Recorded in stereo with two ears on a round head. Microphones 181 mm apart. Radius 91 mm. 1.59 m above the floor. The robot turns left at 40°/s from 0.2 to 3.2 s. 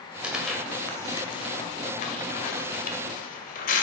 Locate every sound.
0.2 s tearing paper: 5° right (ahead or behind), 1.7 m; by 3.8 s 40° left (ahead or behind), 1.7 m